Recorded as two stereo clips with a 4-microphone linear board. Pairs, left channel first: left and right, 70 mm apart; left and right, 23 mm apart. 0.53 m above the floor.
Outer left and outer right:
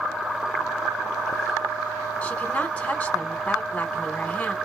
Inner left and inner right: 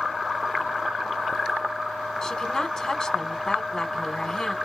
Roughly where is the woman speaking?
Centre.